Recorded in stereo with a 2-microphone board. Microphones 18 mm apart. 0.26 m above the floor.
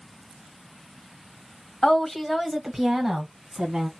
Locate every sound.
1.8 s a woman speaking: 30° left (ahead or behind), 1.2 m; by 3.9 s 40° right (ahead or behind), 1.5 m